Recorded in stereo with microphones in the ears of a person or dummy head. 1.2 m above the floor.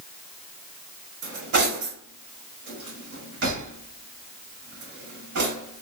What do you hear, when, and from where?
1.2 s cutlery clinking: 60° right (ahead or behind), 2.0 m